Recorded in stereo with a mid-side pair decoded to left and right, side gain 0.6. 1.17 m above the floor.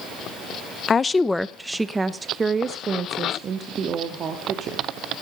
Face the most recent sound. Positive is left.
turn(degrees=-45)